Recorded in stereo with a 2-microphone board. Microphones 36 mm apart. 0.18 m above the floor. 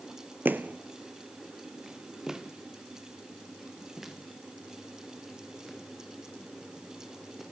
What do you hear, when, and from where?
0.5 s footsteps: 65° right (ahead or behind), 0.6 m; by 7.4 s 5° right (ahead or behind), 6 m